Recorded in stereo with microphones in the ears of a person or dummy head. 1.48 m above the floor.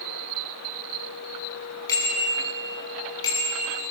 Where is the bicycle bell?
20° left (ahead or behind), 9.5 m; by 3.7 s 25° left (ahead or behind), 10 m.